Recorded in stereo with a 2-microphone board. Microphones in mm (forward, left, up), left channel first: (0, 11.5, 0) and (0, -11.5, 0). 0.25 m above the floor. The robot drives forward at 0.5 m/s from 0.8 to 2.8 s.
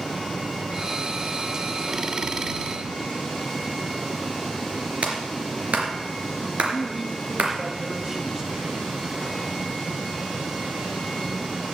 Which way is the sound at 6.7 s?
15° right (ahead or behind).